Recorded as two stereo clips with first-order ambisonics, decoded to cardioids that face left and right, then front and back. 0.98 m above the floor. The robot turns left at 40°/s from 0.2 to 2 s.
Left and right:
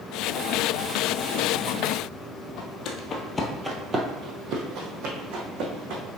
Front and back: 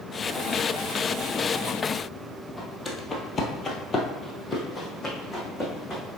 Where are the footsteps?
75° left, 1.5 m; by 6.0 s 80° right, 3 m.